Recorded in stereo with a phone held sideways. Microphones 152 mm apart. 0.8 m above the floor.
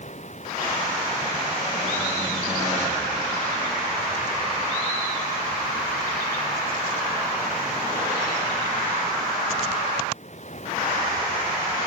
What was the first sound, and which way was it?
Running water, 50° left (ahead or behind).